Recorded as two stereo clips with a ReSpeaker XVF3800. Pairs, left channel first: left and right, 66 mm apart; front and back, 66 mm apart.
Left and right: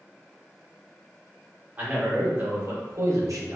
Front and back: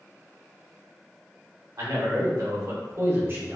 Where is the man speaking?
160° right, 1.4 m; by 3.6 s 120° right, 0.9 m.